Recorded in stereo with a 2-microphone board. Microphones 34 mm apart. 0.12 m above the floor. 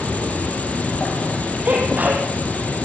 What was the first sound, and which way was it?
An insect, 45° left (ahead or behind).